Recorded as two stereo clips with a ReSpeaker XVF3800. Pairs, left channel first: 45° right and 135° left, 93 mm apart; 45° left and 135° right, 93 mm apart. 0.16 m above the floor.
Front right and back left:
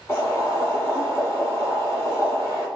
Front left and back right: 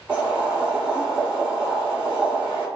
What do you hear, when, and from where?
0.1 s boiling: 70° right, 1.2 m